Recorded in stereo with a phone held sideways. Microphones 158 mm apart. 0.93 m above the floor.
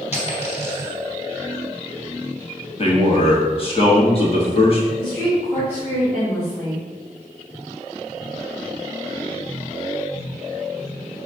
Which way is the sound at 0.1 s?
45° left (ahead or behind).